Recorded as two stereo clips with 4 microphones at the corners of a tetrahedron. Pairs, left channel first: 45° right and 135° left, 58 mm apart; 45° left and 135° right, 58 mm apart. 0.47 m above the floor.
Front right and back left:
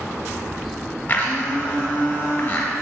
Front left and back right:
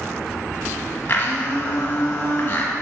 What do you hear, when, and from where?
1.1 s a blender: 10° left, 1.4 m